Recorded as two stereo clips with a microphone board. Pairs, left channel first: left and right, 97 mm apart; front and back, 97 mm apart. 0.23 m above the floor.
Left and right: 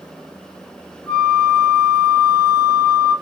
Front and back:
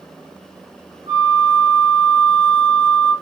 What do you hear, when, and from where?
1.1 s a flute: 150° left, 1.4 m